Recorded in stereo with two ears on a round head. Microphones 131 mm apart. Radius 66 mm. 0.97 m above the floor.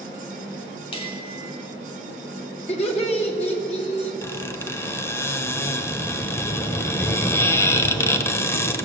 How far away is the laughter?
About 1.8 m.